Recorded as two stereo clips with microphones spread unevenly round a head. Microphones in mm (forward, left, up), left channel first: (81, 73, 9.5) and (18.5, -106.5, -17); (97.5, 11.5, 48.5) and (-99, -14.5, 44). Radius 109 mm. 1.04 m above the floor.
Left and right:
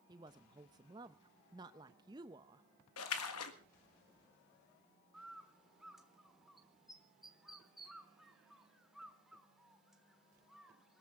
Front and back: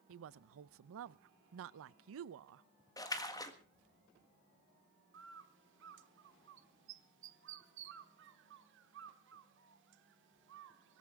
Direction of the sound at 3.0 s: 80° left.